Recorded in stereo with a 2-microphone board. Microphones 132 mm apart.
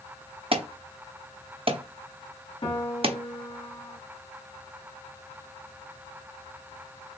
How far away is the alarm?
About 0.7 m.